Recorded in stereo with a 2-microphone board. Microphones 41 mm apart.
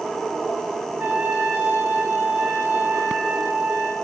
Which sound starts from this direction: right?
A trumpet, at 1.0 s.